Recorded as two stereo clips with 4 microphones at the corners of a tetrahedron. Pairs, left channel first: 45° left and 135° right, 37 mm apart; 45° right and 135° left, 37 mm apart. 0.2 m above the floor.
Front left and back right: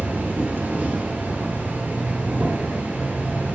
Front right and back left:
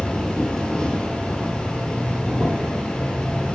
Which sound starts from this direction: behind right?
An insect, at 0.0 s.